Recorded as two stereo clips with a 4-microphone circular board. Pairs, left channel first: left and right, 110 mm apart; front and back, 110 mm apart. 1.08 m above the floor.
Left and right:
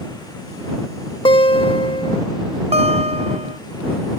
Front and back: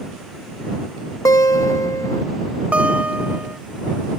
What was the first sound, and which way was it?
A guitar, 55° left.